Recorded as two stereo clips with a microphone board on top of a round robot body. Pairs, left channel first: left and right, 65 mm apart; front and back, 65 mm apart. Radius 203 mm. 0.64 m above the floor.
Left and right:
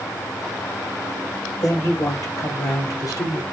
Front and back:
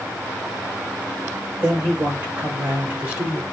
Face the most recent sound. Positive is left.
turn(degrees=115)